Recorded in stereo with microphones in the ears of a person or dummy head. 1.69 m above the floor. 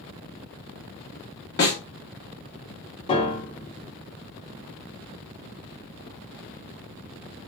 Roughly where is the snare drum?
Centre.